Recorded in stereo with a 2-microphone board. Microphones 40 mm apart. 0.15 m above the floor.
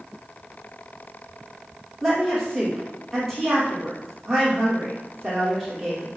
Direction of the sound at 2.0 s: 5° right (ahead or behind).